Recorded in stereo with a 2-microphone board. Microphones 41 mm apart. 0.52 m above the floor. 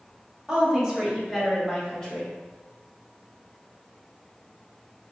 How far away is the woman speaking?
About 1.3 m.